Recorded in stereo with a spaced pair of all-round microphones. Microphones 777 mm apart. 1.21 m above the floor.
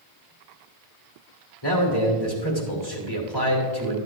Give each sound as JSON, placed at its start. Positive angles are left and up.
{"t": 1.6, "sound": "a man speaking", "side_deg": 30, "distance_m": 3.0}